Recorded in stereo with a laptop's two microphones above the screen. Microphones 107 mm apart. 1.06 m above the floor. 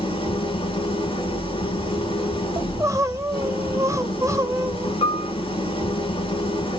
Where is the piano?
60° left (ahead or behind), 0.8 m.